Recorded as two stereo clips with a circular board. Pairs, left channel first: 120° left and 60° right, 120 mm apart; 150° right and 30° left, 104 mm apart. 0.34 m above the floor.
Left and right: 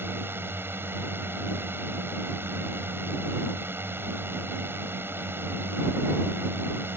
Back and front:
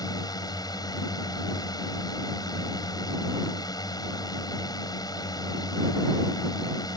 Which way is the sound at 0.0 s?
125° right.